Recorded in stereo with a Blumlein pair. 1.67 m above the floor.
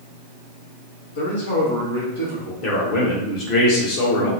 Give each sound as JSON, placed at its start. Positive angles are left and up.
{"t": 1.1, "sound": "a man speaking", "azimuth_deg": 65, "distance_m": 1.2}
{"t": 2.6, "sound": "a man speaking", "azimuth_deg": 40, "distance_m": 1.1}